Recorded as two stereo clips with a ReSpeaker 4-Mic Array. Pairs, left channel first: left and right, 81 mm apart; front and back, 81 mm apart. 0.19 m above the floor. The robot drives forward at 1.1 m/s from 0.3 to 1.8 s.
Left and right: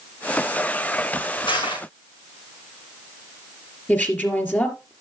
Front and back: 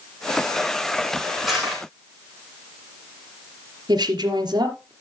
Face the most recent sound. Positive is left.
turn(degrees=155)